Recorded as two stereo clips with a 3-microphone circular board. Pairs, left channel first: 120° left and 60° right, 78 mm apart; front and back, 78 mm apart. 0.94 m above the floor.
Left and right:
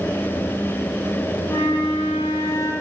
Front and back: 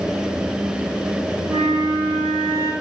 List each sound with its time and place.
1.5 s a flute: 165° left, 2 m